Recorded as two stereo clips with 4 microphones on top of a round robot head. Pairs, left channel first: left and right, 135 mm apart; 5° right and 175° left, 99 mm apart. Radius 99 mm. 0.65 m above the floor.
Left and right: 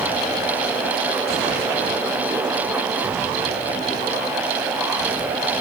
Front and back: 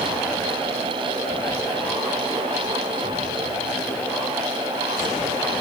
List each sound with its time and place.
Only background noise.